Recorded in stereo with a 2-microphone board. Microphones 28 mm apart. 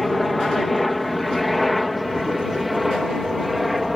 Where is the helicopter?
Centre (ahead or behind); by 4.0 s 5° right (ahead or behind).